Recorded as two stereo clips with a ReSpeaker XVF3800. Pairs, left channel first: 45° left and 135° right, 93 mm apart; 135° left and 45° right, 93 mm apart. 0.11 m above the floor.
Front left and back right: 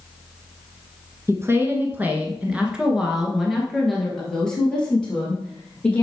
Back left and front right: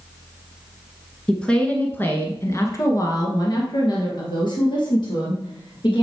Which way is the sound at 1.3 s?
150° right.